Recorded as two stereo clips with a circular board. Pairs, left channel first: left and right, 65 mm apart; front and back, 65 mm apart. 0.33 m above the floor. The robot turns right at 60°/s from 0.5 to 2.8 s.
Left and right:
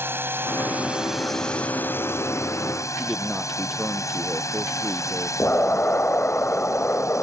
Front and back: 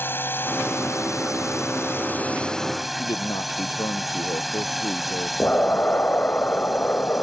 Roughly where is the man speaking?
Ahead.